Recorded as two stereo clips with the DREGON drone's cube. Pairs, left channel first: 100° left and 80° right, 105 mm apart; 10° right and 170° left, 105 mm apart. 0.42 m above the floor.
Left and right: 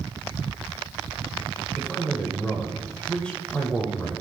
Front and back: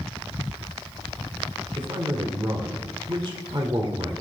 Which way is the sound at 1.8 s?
175° left.